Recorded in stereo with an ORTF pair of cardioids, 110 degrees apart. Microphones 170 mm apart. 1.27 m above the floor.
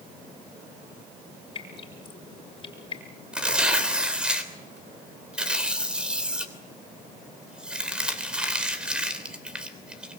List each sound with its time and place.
1.6 s dripping: 30° left, 5 m
3.3 s tearing paper: 5° right, 3 m